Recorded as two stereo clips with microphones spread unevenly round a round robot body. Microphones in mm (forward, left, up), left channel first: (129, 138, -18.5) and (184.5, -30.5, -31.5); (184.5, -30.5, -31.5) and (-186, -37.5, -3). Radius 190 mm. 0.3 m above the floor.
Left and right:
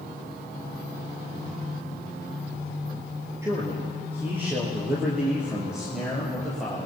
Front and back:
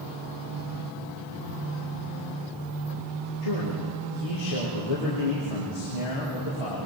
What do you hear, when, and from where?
3.4 s a man speaking: straight ahead, 5.5 m; by 6.9 s 20° left, 6.5 m